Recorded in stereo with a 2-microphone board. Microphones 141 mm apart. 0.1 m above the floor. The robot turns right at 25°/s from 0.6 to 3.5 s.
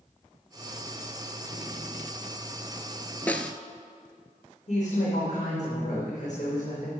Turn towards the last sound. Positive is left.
turn(degrees=55)  # may be behind; listen again after turning